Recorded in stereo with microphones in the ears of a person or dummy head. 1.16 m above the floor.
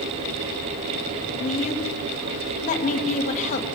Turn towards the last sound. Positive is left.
turn(degrees=40)  # may be behind; listen again after turning